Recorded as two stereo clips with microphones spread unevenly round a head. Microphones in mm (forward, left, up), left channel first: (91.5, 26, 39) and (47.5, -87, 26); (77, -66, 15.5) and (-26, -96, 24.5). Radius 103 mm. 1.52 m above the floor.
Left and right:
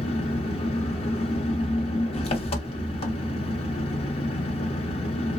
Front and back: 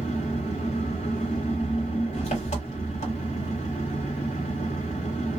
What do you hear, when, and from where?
0.0 s an engine running: 45° left, 1.0 m